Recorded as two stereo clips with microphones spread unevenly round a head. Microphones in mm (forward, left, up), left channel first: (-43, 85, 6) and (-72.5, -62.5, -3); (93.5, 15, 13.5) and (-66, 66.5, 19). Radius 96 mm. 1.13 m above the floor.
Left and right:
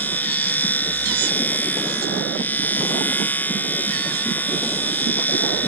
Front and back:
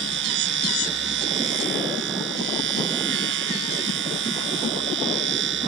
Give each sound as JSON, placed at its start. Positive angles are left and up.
{"t": 0.0, "sound": "a machine running", "azimuth_deg": 155}